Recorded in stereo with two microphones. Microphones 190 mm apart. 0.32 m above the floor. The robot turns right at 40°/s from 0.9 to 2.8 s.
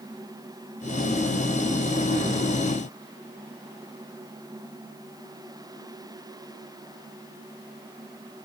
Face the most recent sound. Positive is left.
No sound to turn to.